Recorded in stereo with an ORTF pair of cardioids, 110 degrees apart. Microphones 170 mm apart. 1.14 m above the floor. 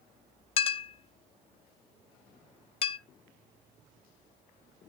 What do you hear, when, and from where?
0.6 s a clink: 35° left, 0.6 m